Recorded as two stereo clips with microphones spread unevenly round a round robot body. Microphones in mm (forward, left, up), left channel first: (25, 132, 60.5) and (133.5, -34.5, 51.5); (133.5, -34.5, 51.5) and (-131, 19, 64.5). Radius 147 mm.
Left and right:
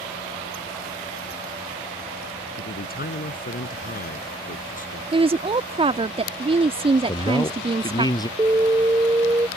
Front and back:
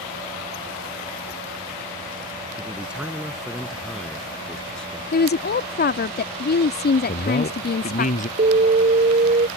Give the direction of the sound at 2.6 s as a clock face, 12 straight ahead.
9 o'clock.